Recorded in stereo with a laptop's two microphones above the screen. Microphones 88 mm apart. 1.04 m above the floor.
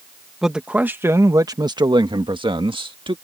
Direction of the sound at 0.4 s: 5° right (ahead or behind).